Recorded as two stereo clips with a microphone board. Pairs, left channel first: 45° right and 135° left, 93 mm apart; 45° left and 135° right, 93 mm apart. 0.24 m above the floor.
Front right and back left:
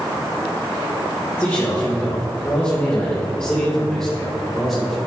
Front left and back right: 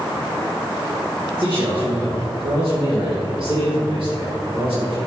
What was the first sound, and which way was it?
A man speaking, 110° right.